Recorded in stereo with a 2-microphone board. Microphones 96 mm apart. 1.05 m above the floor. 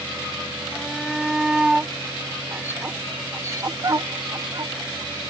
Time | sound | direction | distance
0.7 | a shout | 5° left (ahead or behind) | ?